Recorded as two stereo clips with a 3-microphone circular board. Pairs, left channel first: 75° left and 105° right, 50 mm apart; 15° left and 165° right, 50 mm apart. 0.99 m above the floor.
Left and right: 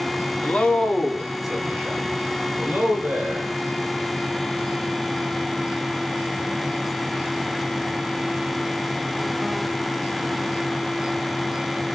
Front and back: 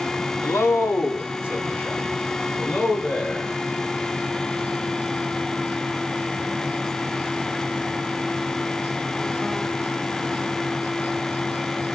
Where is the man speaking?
15° left, 1.8 m; by 3.6 s 45° right, 5.5 m.